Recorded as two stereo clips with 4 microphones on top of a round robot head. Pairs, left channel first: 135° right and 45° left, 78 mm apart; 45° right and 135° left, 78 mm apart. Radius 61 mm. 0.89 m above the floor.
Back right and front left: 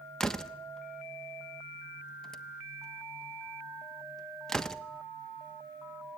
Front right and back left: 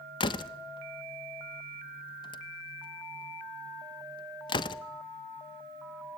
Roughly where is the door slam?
Ahead right.